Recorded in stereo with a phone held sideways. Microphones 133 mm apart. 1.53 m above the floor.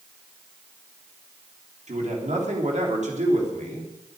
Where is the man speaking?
65° right (ahead or behind), 3.5 m.